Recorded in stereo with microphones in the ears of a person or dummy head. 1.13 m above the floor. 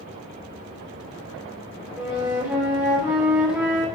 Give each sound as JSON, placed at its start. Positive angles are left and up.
{"t": 2.0, "sound": "a flute", "side_deg": -10, "distance_m": 2.5}